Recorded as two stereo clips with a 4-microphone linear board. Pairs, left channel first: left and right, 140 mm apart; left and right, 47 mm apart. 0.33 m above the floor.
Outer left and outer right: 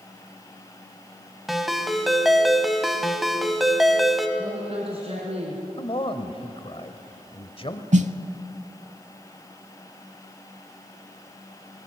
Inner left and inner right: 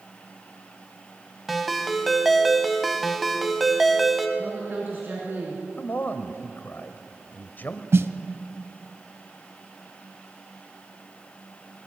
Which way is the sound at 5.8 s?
40° left (ahead or behind).